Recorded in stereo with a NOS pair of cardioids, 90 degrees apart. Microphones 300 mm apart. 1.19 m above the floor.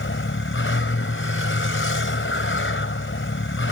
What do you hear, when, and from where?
0.0 s a vehicle: 45° left